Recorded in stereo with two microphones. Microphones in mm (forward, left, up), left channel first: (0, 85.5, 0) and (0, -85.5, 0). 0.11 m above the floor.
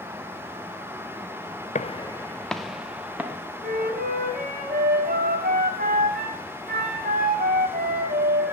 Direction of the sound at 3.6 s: 55° right (ahead or behind).